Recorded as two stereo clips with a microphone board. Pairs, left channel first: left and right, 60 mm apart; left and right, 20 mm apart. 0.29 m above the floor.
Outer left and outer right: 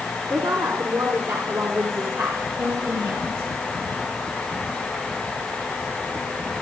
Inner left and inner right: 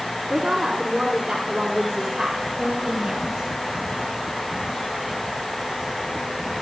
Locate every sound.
0.3 s a woman speaking: 70° right (ahead or behind), 4 m; by 3.5 s 50° right (ahead or behind), 3.5 m